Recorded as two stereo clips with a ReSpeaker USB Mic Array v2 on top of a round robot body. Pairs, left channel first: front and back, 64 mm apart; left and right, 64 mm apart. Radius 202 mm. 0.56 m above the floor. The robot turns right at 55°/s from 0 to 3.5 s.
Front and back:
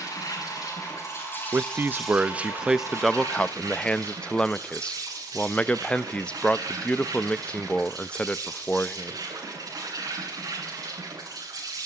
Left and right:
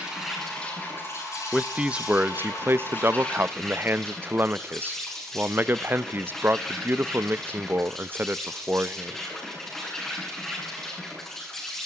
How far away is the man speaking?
About 0.8 m.